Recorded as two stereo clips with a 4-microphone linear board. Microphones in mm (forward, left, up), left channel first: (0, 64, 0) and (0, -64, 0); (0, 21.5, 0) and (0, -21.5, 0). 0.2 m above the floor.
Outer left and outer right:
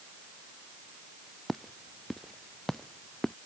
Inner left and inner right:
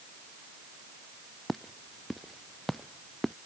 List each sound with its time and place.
1.5 s footsteps: centre (ahead or behind); by 3.3 s 5° left (ahead or behind)